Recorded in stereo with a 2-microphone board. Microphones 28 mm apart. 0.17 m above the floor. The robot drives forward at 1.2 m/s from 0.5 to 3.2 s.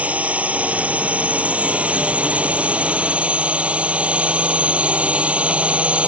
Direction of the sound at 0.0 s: 65° right (ahead or behind).